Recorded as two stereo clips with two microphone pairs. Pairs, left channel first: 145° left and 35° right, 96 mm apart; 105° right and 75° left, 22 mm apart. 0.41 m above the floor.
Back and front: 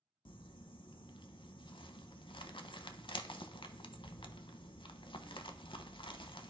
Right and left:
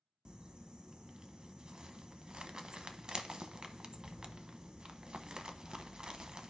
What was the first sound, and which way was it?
Crumpling, 120° left.